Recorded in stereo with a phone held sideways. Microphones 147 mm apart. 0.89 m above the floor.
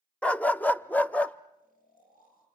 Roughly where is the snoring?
Left.